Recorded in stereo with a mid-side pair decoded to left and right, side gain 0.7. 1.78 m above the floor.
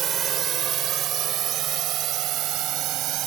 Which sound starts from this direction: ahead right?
A drone, at 0.0 s.